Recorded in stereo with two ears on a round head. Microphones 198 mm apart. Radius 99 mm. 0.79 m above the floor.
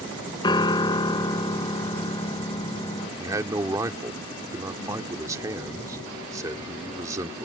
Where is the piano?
20° left (ahead or behind).